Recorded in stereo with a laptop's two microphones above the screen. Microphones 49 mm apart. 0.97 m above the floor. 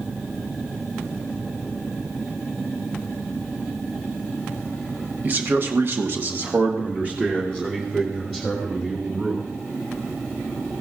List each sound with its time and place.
5.2 s a man speaking: 35° right (ahead or behind), 1.2 m; by 9.4 s 15° right (ahead or behind), 4 m